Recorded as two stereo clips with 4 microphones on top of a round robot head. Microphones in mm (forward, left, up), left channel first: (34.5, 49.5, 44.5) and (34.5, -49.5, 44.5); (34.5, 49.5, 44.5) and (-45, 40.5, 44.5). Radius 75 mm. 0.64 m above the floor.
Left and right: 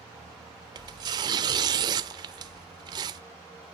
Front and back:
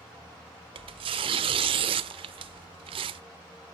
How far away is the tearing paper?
About 0.8 m.